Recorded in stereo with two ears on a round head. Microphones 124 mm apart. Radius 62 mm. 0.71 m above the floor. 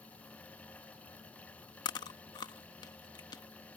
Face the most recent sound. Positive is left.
turn(degrees=30)  # may be behind; listen again after turning